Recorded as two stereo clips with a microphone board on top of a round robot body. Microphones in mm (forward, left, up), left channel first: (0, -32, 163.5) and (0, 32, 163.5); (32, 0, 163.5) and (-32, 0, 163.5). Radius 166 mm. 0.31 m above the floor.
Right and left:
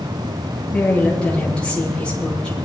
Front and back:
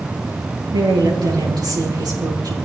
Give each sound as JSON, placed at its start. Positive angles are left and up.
{"t": 0.7, "sound": "a woman speaking", "azimuth_deg": -165, "distance_m": 7.5}